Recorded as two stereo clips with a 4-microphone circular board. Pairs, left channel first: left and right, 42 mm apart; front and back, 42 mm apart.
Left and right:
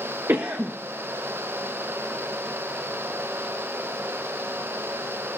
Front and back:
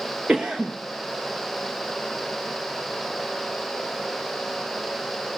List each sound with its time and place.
0.3 s a cough: 105° right, 0.9 m